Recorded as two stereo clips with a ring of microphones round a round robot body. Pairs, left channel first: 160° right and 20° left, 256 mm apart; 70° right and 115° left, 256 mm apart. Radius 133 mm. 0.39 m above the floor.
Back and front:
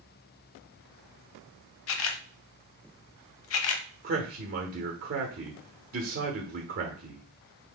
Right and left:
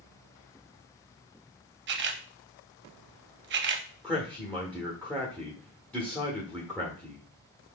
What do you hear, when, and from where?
1.9 s a camera shutter: 160° left, 0.6 m
4.0 s a man speaking: 15° left, 1.1 m